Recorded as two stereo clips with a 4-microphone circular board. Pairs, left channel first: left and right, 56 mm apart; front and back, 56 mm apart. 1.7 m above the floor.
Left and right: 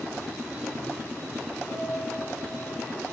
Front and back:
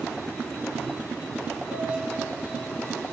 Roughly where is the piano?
Ahead left.